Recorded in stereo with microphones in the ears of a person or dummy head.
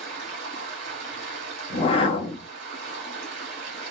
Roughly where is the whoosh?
Left.